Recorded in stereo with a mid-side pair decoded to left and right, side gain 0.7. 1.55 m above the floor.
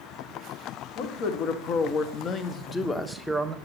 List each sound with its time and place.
0.9 s a man speaking: 65° left, 1.5 m; by 3.5 s 15° right, 0.9 m